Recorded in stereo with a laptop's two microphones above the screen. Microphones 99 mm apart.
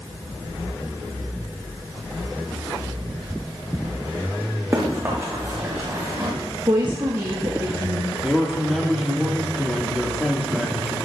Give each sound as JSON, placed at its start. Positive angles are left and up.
{"t": 4.7, "sound": "running footsteps", "side_deg": -30, "distance_m": 3.5}
{"t": 6.7, "sound": "a woman speaking", "side_deg": -50, "distance_m": 1.2}
{"t": 8.2, "sound": "a man speaking", "side_deg": 0, "distance_m": 1.6}